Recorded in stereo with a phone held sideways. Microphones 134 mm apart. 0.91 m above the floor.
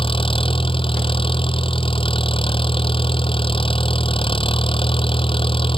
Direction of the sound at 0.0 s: 40° left (ahead or behind).